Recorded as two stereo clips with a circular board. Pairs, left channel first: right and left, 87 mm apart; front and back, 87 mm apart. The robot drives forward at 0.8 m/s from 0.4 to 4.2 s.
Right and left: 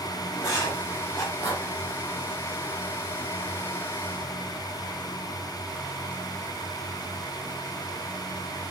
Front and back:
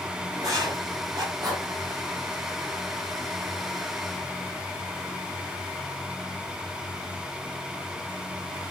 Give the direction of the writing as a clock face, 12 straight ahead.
4 o'clock.